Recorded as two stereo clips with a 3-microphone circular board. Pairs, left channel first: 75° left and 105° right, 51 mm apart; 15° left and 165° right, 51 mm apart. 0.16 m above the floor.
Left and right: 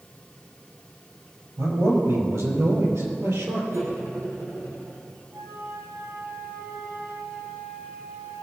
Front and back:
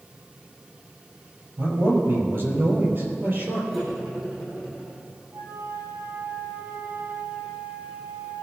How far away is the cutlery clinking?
About 4.5 m.